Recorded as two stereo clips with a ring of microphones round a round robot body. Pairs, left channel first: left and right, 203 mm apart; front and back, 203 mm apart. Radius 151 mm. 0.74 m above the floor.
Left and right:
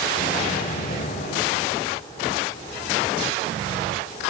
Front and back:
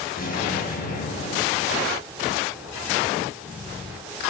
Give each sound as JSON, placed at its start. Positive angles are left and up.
{"t": 0.2, "sound": "an explosion", "azimuth_deg": 45, "distance_m": 5.0}